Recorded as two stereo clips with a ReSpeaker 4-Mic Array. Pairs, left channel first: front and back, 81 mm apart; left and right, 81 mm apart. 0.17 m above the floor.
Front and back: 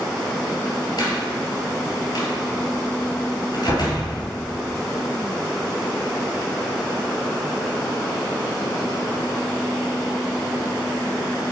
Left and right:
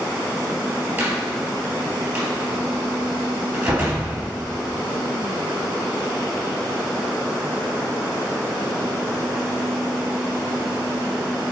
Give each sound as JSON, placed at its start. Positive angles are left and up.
{"t": 1.0, "sound": "a door slam", "azimuth_deg": -30, "distance_m": 2.5}